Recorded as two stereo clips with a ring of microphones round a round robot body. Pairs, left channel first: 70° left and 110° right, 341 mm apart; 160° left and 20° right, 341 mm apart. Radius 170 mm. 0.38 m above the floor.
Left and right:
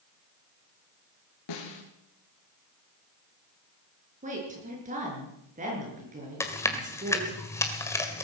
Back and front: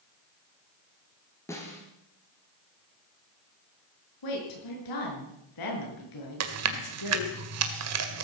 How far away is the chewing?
About 1.8 m.